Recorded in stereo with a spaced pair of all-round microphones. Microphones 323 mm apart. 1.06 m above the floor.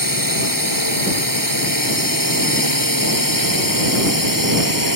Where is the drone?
85° right.